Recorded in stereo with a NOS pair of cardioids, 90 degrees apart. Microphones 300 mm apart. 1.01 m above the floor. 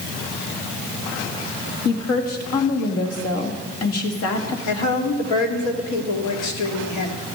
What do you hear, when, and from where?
1.9 s a woman speaking: 60° left, 2 m
4.7 s a woman speaking: 70° left, 2 m